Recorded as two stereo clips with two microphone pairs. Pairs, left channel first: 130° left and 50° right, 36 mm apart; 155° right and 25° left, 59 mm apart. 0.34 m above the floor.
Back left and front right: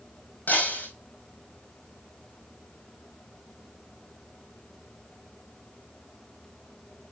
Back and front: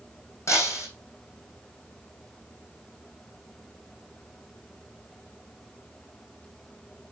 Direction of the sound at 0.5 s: 165° left.